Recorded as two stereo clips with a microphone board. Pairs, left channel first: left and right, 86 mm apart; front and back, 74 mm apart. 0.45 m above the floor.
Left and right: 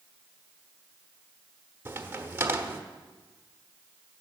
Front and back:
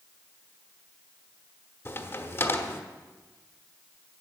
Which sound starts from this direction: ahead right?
A crack, at 1.9 s.